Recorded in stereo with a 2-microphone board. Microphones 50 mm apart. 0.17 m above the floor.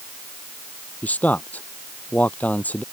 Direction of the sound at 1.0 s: 30° left (ahead or behind).